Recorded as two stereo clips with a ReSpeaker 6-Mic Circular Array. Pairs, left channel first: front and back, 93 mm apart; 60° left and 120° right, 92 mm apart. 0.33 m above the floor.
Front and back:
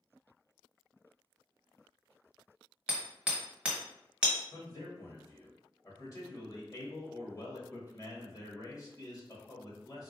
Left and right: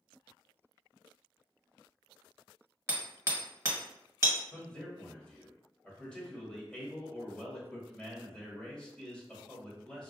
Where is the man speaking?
10° right, 1.4 m.